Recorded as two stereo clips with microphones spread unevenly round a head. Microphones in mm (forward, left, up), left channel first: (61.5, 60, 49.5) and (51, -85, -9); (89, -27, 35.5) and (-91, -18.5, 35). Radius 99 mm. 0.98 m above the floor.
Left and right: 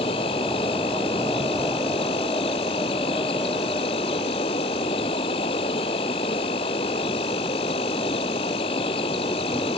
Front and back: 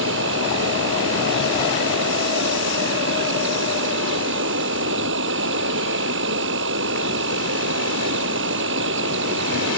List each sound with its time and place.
0.0 s an insect: 150° left